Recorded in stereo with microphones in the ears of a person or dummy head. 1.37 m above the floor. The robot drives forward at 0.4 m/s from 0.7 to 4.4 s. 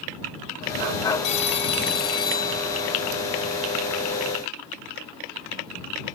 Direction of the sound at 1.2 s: 35° left (ahead or behind).